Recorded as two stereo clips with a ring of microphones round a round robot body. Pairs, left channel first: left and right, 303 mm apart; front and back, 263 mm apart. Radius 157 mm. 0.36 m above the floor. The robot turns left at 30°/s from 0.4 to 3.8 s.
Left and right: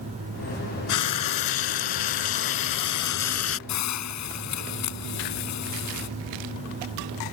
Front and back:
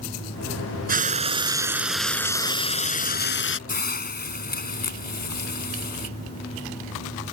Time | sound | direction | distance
0.9 | frying | 120° left | ?
3.7 | a hiss | 60° left | ?